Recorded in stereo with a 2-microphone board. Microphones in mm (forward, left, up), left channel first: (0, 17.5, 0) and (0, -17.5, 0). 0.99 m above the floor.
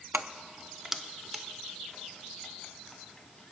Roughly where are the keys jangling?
Right.